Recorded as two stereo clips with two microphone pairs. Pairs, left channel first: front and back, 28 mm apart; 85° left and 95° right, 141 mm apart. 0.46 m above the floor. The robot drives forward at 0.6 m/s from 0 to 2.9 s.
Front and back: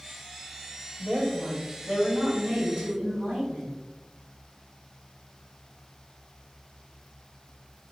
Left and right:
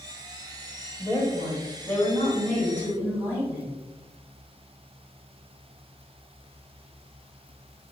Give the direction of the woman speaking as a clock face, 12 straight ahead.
7 o'clock.